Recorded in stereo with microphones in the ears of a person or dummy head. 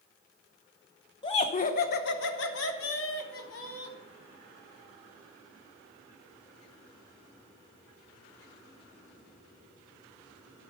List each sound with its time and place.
1.2 s laughter: 20° left (ahead or behind), 0.9 m; by 4.0 s 85° left, 1.9 m